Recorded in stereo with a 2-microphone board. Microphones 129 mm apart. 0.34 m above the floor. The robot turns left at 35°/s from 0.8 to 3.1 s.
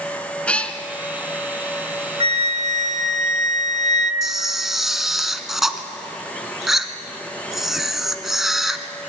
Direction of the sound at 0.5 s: 10° left (ahead or behind).